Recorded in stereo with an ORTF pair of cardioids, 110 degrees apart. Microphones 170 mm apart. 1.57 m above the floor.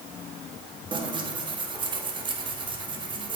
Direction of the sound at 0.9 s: 30° right.